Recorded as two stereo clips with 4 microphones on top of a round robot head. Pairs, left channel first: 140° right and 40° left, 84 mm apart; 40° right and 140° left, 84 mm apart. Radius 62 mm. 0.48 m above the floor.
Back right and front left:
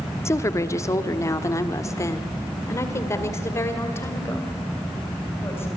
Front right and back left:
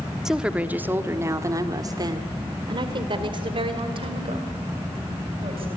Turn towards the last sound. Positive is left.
turn(degrees=155)